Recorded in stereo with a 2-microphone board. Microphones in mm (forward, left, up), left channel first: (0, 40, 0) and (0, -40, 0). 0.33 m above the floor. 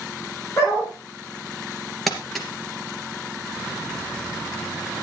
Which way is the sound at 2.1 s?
Centre (ahead or behind).